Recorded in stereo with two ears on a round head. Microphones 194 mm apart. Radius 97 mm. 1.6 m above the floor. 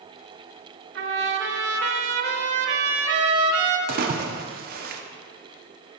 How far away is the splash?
About 0.6 m.